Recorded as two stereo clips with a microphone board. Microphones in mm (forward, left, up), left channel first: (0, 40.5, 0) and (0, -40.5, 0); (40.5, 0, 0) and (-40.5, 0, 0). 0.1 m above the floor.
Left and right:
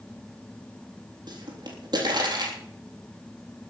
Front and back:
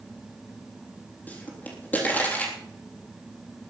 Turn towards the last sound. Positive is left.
turn(degrees=-65)